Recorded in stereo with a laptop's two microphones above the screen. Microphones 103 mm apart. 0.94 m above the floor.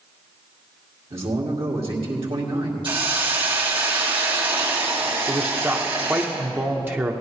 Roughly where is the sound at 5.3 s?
Right.